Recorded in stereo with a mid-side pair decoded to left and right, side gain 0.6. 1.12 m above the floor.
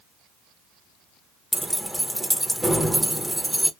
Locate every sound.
1.5 s keys jangling: 5° right, 0.6 m